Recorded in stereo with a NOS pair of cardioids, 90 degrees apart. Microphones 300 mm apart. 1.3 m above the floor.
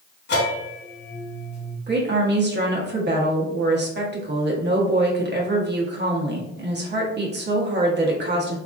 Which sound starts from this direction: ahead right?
A woman speaking, at 1.9 s.